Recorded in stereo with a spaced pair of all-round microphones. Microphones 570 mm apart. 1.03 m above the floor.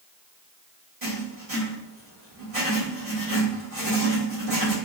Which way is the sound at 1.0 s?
80° right.